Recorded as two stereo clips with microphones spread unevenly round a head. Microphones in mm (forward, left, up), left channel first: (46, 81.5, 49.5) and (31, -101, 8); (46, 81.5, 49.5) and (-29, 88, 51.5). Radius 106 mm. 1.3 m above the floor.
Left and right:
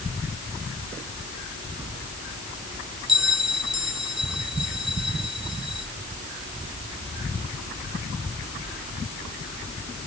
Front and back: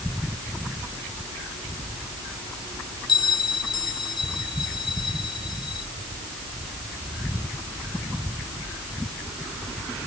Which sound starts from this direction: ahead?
A bell, at 3.1 s.